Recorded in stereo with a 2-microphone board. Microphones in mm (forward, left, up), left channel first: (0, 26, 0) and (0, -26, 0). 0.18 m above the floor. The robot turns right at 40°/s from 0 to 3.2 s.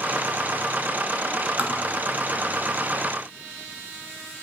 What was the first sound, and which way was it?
Tapping, 30° right (ahead or behind).